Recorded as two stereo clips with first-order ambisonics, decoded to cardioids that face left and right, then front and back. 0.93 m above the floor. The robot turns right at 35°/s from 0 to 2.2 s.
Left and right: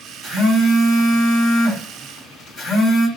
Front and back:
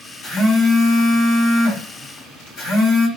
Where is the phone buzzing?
40° right, 1.4 m; by 3.1 s 25° left, 1.4 m.